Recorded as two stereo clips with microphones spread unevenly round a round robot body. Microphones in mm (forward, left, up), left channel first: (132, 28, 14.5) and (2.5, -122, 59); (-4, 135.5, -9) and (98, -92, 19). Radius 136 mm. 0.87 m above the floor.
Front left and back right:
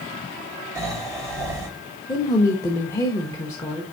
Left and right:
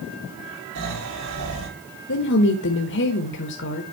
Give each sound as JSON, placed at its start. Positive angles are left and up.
{"t": 0.8, "sound": "snoring", "azimuth_deg": -55, "distance_m": 5.5}
{"t": 2.1, "sound": "a woman speaking", "azimuth_deg": 110, "distance_m": 1.1}